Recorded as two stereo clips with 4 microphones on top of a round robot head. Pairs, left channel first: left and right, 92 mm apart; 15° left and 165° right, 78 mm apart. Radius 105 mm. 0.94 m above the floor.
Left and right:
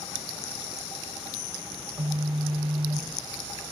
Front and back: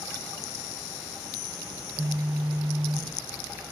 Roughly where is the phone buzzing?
Right.